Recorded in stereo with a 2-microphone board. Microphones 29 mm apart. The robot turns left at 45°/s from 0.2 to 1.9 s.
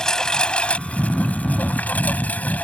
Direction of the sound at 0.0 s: 155° left.